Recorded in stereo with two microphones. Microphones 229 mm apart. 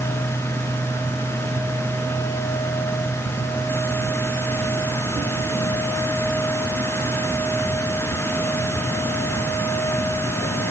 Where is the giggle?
I don't hear a giggle.